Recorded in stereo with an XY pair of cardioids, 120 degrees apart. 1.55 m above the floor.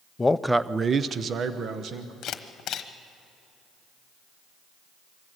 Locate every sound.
0.2 s a man speaking: 20° left, 0.5 m; by 2.1 s 60° right, 1.6 m
2.2 s a camera shutter: 60° left, 1.1 m